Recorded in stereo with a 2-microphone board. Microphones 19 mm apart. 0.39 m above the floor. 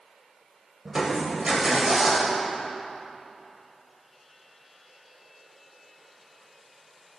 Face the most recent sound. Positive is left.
turn(degrees=-25)  # may be behind; listen again after turning